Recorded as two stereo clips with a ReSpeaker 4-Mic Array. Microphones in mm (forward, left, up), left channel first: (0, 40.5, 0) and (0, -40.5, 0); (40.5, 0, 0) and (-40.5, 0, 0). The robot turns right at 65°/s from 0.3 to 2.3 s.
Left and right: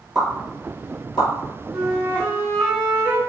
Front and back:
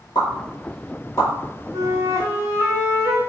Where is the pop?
Straight ahead, 1.2 m; by 1.3 s 65° left, 1.2 m.